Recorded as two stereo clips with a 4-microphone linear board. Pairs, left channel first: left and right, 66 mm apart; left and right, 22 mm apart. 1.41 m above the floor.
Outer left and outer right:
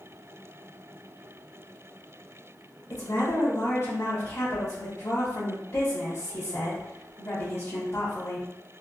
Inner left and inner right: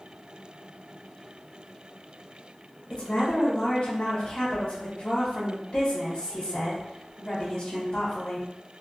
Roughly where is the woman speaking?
Left.